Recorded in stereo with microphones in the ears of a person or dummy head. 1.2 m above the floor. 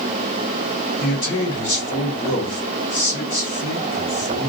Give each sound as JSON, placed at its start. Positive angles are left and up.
{"t": 1.0, "sound": "a man speaking", "side_deg": 55, "distance_m": 1.5}